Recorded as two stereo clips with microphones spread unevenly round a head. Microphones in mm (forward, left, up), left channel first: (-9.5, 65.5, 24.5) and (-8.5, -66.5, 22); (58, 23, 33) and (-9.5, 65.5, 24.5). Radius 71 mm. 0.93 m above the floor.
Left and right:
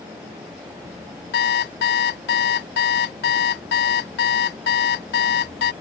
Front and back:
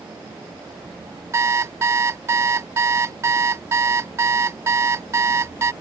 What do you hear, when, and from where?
1.3 s an alarm clock: 90° left